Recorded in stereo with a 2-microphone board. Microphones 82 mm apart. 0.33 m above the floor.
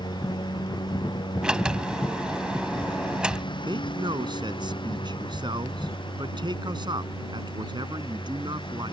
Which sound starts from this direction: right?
A man speaking, at 3.6 s.